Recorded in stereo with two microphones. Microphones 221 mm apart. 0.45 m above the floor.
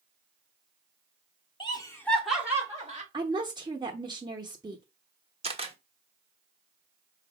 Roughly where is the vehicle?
I don't hear a vehicle.